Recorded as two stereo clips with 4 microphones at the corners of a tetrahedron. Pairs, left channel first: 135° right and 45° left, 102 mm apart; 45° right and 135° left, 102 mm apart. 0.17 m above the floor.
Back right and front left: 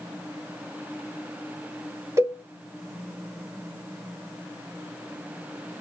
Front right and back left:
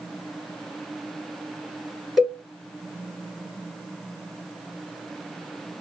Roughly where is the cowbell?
Ahead left.